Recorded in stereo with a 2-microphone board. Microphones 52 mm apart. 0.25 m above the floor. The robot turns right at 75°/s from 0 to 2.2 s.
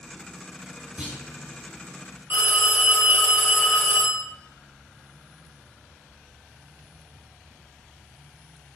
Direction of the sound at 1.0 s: 25° right (ahead or behind).